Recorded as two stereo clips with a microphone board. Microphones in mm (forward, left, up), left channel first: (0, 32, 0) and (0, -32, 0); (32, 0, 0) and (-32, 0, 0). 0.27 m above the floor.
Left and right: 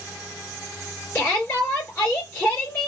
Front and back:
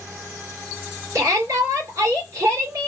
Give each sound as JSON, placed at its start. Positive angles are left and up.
{"t": 1.1, "sound": "a shout", "azimuth_deg": 145, "distance_m": 3.0}